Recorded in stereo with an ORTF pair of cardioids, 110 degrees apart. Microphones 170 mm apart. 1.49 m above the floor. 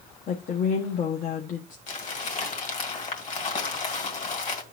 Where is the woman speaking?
50° left, 0.9 m.